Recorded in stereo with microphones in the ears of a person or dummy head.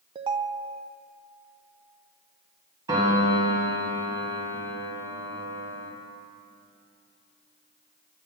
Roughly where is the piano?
Right.